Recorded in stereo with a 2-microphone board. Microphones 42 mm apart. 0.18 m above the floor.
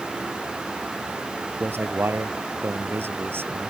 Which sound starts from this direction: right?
A man speaking, at 1.6 s.